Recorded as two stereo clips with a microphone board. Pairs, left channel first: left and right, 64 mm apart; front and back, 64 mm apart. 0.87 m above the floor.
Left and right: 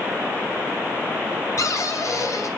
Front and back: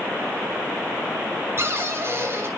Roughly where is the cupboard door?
Behind left.